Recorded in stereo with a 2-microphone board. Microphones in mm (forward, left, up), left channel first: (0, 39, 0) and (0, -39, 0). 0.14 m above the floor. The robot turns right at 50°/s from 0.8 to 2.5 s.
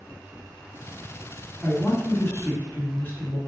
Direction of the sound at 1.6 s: 95° left.